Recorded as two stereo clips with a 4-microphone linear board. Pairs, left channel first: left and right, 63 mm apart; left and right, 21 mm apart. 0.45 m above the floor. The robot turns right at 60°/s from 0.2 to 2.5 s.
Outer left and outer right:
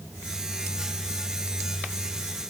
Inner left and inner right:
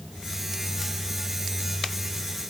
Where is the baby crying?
I don't hear a baby crying.